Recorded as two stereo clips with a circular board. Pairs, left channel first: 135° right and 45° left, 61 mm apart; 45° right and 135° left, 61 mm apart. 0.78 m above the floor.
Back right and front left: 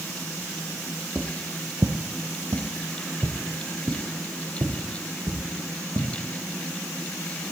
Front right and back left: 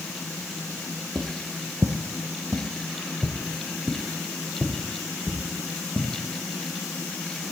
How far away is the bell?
I don't hear a bell.